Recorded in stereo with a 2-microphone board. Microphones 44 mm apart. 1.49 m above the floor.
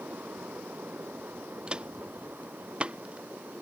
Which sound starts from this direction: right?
Footsteps, at 1.7 s.